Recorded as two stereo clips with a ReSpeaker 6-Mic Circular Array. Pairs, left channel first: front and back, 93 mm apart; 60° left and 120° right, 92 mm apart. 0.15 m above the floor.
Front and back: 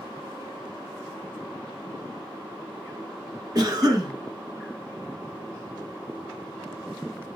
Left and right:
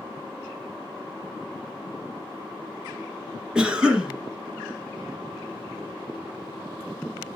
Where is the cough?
160° left, 1.4 m.